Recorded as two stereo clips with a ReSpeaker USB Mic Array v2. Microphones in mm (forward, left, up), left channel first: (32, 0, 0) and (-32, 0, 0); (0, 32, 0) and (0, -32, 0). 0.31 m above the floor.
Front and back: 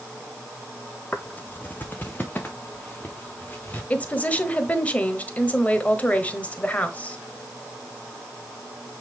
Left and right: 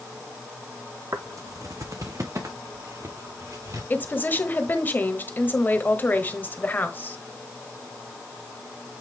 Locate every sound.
1.1 s footsteps: 60° right, 0.7 m
3.9 s a woman speaking: 55° left, 1.1 m